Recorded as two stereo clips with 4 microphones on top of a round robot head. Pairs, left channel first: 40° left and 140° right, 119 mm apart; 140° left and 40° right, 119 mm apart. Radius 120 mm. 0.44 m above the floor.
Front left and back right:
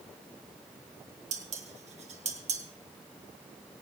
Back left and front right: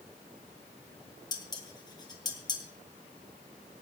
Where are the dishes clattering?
165° right, 2 m.